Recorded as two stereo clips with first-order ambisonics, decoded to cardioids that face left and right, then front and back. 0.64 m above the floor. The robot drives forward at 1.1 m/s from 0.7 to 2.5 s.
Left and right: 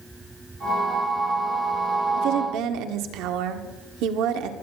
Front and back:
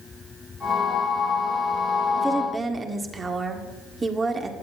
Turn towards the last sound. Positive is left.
turn(degrees=-105)